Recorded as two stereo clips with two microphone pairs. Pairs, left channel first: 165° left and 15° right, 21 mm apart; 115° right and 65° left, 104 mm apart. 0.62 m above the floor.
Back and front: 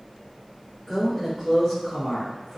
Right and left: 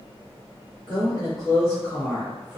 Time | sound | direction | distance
0.9 | a woman speaking | 120° right | 1.4 m